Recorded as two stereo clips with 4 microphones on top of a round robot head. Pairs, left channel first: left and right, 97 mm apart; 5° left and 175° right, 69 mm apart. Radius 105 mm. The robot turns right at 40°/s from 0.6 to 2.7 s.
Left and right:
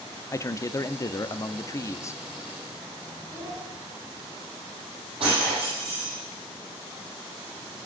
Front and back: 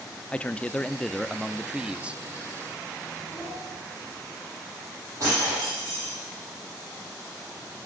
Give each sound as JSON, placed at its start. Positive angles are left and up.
{"t": 0.3, "sound": "a man speaking", "azimuth_deg": 65, "distance_m": 0.8}
{"t": 3.3, "sound": "a child speaking", "azimuth_deg": -30, "distance_m": 5.0}
{"t": 5.2, "sound": "breaking glass", "azimuth_deg": -125, "distance_m": 10.0}